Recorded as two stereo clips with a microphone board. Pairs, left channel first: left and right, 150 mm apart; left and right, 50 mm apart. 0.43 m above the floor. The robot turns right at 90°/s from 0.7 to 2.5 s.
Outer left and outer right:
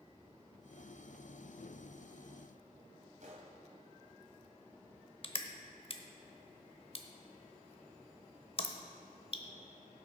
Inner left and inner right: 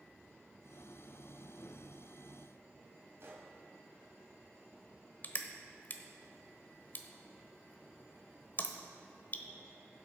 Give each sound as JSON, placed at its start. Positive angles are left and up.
{"t": 3.2, "sound": "a gunshot", "side_deg": -60, "distance_m": 1.8}
{"t": 5.2, "sound": "crushing", "side_deg": 40, "distance_m": 0.8}